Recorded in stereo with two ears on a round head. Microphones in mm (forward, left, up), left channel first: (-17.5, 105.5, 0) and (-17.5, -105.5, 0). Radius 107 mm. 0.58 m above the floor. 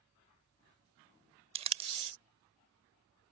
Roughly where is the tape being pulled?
Right.